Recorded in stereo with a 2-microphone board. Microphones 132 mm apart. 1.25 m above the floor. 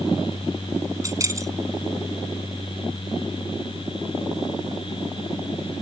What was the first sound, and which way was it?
Keys jangling, 25° right (ahead or behind).